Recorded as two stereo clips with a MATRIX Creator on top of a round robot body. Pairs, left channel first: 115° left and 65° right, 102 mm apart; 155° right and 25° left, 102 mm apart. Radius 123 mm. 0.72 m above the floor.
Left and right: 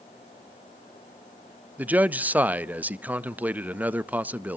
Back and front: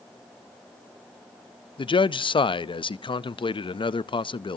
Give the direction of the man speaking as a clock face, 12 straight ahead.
5 o'clock.